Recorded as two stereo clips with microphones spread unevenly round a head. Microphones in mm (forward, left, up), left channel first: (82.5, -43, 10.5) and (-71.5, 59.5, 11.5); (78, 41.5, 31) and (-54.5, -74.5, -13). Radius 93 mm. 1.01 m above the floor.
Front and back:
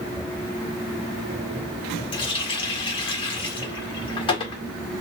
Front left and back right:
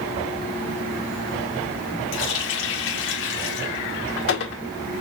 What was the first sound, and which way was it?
A running tap, 30° left.